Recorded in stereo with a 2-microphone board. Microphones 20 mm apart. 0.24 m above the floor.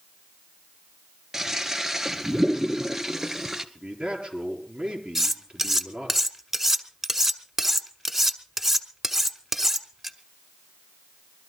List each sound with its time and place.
1.3 s a toilet flushing: 20° right (ahead or behind), 1.0 m
3.8 s a man speaking: 45° right (ahead or behind), 4.5 m
5.2 s cutlery clinking: 15° right (ahead or behind), 1.2 m